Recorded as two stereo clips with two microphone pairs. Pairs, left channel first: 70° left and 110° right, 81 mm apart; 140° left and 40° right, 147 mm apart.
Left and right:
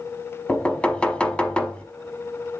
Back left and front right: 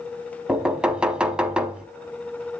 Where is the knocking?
20° left, 0.7 m.